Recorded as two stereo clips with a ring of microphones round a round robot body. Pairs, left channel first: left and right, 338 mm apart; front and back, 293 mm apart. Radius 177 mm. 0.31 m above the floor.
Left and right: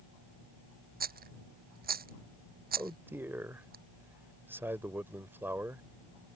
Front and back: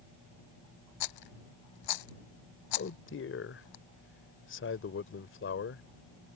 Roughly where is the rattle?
Ahead right.